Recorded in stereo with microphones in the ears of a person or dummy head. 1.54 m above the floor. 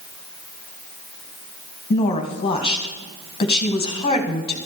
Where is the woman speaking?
25° left (ahead or behind), 1.5 m.